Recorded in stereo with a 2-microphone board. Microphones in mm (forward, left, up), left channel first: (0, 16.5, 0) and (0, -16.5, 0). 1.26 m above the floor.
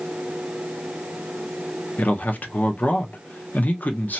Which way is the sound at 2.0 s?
55° left (ahead or behind).